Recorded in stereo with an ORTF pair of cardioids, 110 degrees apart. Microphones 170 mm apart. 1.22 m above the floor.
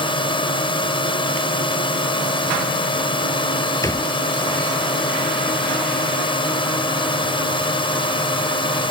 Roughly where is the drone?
Ahead left.